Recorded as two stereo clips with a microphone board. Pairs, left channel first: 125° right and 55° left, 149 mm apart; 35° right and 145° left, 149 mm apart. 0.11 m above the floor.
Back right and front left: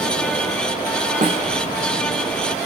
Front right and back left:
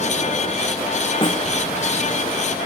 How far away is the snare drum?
About 3.5 m.